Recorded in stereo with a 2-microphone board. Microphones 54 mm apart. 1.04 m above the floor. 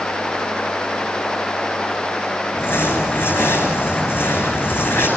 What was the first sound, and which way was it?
Crumpling, 45° left (ahead or behind).